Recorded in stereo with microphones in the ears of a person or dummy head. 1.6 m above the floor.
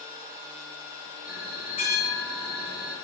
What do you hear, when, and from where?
1.2 s a bell: 40° left (ahead or behind), 1.5 m